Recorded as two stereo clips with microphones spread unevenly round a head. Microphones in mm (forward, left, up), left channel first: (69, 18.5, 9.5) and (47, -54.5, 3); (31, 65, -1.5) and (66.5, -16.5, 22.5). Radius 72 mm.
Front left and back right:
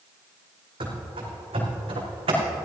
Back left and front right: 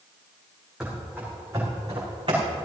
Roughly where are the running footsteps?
Behind right.